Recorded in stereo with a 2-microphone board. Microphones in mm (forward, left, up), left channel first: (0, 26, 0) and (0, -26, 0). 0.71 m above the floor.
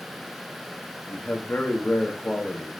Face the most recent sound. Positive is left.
turn(degrees=25)  # may be behind; listen again after turning